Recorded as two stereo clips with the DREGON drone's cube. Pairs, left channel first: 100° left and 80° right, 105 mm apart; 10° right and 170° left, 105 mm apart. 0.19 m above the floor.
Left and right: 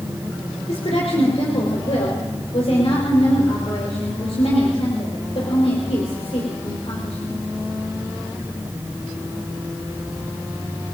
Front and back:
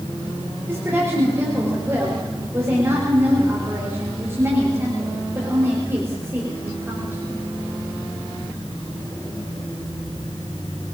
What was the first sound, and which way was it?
A woman speaking, 105° left.